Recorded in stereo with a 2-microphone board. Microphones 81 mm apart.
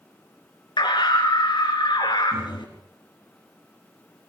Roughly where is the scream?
Left.